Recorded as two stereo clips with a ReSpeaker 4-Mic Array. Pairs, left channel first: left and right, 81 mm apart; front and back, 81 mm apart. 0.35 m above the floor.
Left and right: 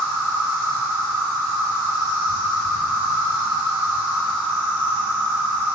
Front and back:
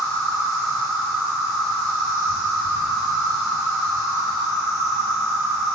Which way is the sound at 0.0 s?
75° left.